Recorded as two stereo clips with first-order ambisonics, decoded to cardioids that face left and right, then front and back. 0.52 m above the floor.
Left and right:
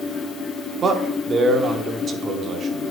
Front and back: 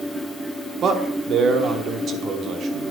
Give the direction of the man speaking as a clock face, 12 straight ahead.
5 o'clock.